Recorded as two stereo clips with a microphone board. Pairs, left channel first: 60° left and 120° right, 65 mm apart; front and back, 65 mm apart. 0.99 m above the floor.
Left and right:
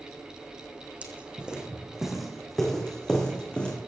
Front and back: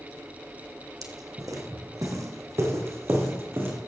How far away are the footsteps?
About 2.5 m.